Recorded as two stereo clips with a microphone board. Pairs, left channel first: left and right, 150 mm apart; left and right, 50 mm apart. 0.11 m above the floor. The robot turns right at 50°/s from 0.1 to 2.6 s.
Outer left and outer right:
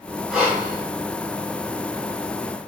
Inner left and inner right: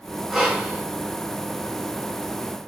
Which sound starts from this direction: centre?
Breathing, at 0.3 s.